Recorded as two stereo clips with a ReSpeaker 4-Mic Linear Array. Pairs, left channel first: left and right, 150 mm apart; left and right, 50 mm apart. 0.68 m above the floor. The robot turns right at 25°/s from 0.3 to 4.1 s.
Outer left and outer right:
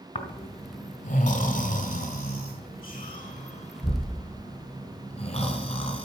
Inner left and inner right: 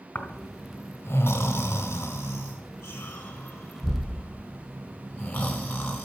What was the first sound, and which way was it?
Snoring, 40° left (ahead or behind).